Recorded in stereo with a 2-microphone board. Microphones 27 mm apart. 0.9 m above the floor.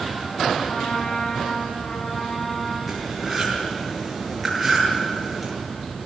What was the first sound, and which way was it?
A trumpet, 70° left (ahead or behind).